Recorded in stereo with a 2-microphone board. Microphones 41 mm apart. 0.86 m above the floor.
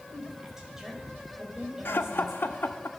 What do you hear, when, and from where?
0.1 s a woman speaking: 10° right (ahead or behind), 4.5 m
1.9 s laughter: 60° left (ahead or behind), 1.1 m